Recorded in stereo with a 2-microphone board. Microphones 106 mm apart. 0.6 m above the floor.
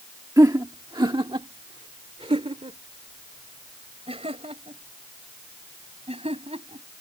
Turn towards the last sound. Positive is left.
turn(degrees=-75)  # may be behind; listen again after turning